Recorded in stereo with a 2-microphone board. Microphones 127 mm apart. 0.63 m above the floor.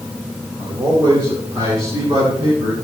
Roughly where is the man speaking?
Right.